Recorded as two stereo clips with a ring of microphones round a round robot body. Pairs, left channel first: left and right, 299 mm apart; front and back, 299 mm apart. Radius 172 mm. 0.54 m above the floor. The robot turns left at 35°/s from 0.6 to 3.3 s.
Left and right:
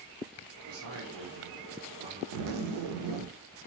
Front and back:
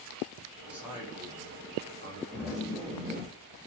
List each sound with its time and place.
0.7 s a man speaking: 95° right, 1.3 m; by 2.2 s 150° right, 1.3 m
2.3 s a zipper: 80° right, 0.6 m; by 3.3 s 115° right, 0.6 m